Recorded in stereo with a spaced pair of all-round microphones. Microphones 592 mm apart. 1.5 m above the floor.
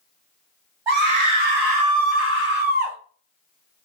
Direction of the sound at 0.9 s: 50° right (ahead or behind).